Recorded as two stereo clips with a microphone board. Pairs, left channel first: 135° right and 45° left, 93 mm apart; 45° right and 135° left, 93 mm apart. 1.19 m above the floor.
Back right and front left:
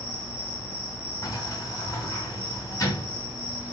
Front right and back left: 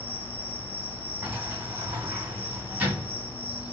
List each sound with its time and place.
0.0 s an insect: 50° right, 1.5 m
1.2 s a sliding door: 160° right, 1.2 m